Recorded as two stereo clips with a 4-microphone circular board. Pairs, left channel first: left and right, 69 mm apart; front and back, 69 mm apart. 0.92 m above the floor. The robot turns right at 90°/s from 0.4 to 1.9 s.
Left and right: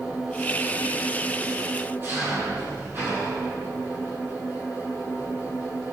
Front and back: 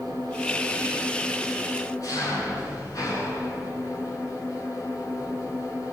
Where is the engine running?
170° right, 9.5 m; by 5.9 s 35° right, 9.5 m.